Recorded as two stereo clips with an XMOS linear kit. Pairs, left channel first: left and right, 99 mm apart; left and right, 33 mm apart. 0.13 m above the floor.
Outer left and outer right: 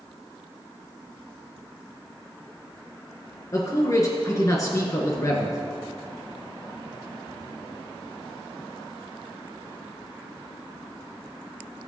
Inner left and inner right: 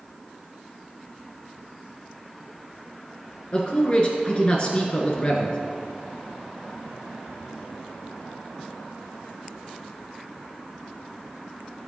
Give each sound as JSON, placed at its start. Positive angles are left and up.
{"t": 3.5, "sound": "a man speaking", "side_deg": 30, "distance_m": 1.6}